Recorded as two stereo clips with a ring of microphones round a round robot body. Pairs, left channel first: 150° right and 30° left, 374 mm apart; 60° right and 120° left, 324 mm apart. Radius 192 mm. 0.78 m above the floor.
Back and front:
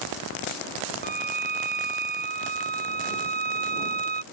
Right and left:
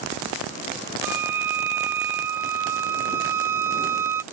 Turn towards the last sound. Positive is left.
turn(degrees=95)